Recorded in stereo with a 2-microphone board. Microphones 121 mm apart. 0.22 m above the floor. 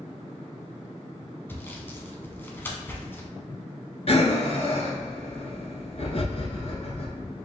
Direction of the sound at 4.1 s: 50° left (ahead or behind).